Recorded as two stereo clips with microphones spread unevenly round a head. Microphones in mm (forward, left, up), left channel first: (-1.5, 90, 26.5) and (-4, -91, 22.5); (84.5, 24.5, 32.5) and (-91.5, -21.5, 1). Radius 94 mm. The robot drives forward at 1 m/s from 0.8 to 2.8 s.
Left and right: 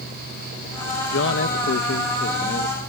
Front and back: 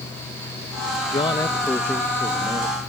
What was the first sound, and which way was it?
A man speaking, 80° left.